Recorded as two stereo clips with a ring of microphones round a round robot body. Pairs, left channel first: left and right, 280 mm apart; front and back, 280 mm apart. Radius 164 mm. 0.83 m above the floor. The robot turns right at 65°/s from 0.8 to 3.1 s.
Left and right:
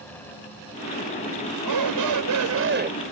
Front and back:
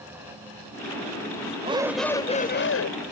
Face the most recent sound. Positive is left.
turn(degrees=-15)